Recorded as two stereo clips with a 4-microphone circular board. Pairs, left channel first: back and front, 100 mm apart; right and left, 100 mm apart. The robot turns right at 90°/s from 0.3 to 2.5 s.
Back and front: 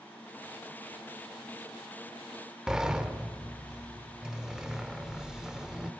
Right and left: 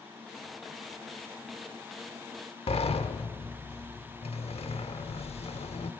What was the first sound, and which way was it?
A sliding door, 85° right.